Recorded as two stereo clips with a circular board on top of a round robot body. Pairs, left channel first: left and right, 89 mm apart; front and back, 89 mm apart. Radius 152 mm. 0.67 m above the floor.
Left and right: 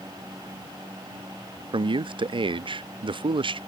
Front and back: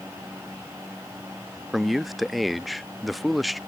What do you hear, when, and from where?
1.7 s a man speaking: 90° right